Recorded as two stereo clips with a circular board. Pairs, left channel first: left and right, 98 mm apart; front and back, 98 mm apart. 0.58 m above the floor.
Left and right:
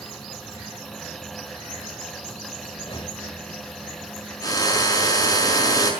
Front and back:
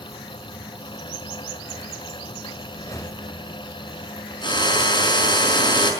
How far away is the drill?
About 5 m.